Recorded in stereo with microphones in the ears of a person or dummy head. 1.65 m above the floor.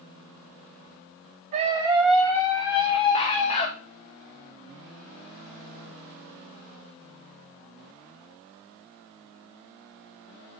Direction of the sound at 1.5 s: 35° right (ahead or behind).